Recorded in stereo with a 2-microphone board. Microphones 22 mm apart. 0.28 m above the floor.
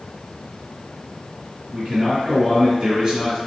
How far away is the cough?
I don't hear a cough.